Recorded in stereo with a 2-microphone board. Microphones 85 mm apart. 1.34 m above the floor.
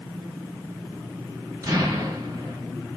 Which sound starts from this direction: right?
An explosion, at 1.6 s.